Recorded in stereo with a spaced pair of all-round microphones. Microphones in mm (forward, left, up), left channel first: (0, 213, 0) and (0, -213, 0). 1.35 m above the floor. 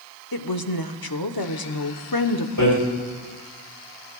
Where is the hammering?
50° left (ahead or behind), 4.5 m.